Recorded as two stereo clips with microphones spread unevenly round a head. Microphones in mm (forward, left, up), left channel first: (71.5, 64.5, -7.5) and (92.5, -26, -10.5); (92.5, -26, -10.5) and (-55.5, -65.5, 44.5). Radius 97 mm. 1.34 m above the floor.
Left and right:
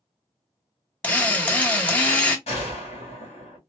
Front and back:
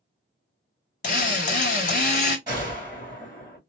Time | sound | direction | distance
1.0 | a drill | 55° left | 0.9 m
2.5 | a gunshot | 130° left | 1.7 m